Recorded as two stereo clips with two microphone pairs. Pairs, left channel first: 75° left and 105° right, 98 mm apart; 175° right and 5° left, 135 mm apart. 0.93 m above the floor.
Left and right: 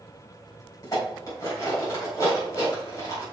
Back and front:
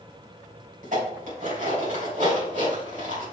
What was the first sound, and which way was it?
Dishes clattering, 25° left.